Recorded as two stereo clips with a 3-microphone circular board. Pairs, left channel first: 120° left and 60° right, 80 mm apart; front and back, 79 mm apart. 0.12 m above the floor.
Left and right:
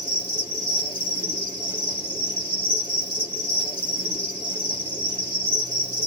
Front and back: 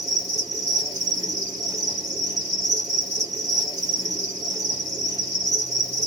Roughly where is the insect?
Ahead right.